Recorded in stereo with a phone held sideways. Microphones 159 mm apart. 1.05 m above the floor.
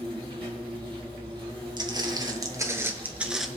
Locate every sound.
0.0 s an insect: 30° right (ahead or behind), 3 m
1.8 s footsteps: 30° right (ahead or behind), 1.7 m; by 3.5 s centre (ahead or behind), 1.0 m